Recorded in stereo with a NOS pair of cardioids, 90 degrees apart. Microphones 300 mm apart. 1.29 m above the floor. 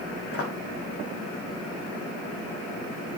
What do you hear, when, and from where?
0.3 s footsteps: 50° left, 5.5 m